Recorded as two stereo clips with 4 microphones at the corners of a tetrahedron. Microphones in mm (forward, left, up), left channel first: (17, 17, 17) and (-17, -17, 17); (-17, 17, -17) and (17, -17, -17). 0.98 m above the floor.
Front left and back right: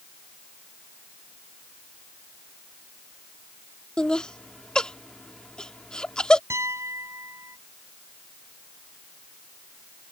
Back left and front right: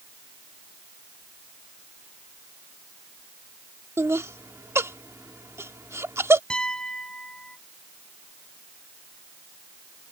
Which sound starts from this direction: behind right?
A piano, at 6.5 s.